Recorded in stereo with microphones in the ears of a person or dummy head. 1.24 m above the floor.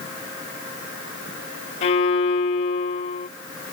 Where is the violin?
45° left (ahead or behind).